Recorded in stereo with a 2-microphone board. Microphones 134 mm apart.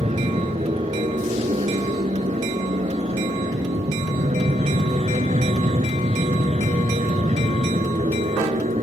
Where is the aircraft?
55° right (ahead or behind); by 8.8 s 60° right (ahead or behind).